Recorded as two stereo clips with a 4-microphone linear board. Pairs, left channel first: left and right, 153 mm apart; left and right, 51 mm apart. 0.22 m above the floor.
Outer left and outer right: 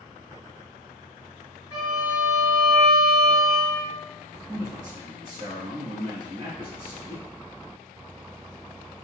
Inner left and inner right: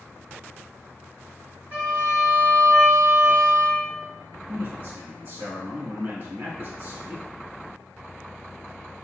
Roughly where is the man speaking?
Right.